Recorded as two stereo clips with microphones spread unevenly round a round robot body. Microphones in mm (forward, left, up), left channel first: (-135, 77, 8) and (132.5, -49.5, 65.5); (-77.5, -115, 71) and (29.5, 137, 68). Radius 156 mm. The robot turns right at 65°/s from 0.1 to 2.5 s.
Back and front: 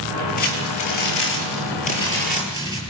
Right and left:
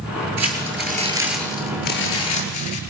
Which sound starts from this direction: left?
Crumpling, at 0.4 s.